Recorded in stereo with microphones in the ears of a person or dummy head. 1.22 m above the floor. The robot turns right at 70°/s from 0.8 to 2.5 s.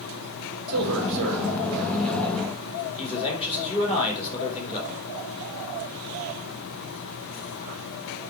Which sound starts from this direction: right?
A man speaking, at 0.7 s.